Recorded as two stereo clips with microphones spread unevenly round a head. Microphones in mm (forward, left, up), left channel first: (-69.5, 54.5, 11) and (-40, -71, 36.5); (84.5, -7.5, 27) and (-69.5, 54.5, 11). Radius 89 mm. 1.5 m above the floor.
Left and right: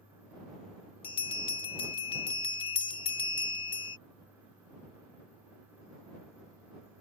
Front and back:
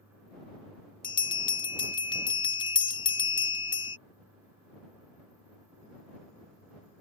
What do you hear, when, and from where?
1.0 s a bell: 40° left